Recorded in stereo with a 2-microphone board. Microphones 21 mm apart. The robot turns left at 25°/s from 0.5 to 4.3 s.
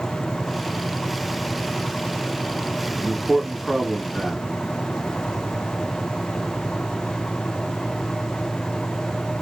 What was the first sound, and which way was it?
A man speaking, 10° right (ahead or behind).